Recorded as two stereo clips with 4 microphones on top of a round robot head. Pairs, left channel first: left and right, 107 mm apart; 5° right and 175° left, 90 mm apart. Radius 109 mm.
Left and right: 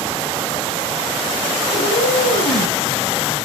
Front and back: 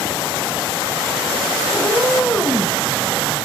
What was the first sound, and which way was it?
A cat meowing, 90° left.